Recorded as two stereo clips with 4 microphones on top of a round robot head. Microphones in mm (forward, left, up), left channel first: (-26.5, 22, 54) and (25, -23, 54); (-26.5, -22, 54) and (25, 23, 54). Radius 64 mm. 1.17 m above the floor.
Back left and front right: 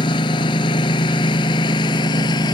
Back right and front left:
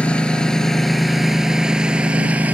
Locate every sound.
0.0 s a lawn mower: 150° left; by 2.5 s 115° left